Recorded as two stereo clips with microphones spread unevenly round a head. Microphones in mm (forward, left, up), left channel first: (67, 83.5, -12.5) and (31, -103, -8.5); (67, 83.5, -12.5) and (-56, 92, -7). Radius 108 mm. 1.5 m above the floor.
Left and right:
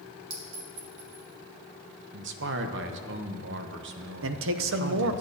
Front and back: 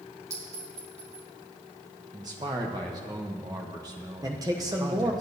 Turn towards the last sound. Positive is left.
turn(degrees=-115)